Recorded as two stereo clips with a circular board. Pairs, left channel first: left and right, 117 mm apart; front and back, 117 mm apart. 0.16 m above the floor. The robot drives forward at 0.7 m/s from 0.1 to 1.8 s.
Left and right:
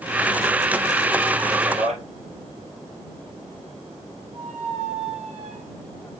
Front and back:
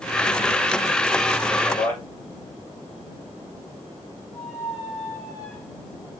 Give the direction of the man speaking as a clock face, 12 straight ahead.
2 o'clock.